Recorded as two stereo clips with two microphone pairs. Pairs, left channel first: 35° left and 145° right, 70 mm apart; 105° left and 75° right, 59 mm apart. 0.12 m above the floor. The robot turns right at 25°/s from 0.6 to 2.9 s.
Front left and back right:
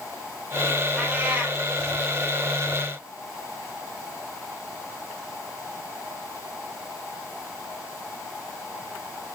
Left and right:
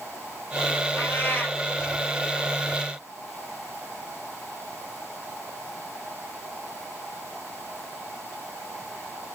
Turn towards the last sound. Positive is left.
turn(degrees=-170)